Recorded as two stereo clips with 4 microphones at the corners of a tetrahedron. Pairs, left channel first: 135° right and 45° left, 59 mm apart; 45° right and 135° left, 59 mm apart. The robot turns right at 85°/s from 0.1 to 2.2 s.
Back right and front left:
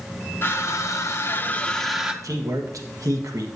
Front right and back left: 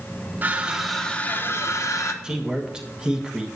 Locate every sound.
0.4 s crushing: 175° right, 0.7 m; by 2.1 s 25° right, 0.7 m
2.2 s a man speaking: 60° left, 1.2 m